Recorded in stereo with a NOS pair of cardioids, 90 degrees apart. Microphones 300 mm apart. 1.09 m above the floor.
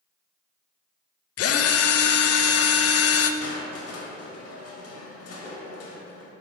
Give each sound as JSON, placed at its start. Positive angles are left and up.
{"t": 1.4, "sound": "a drill", "azimuth_deg": 55, "distance_m": 0.5}
{"t": 3.4, "sound": "crushing", "azimuth_deg": 55, "distance_m": 1.7}